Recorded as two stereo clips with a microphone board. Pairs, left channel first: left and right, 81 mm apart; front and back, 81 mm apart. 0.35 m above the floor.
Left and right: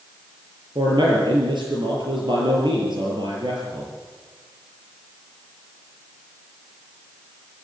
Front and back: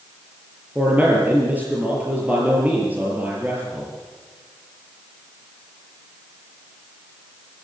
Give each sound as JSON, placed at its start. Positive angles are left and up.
{"t": 0.8, "sound": "a man speaking", "azimuth_deg": -110, "distance_m": 6.0}